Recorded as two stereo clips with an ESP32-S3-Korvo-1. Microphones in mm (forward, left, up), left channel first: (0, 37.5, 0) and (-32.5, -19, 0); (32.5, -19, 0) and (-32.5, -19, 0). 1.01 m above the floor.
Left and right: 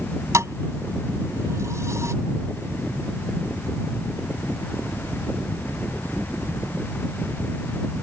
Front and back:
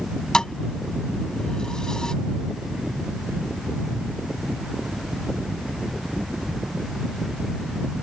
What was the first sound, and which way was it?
A thud, 80° right.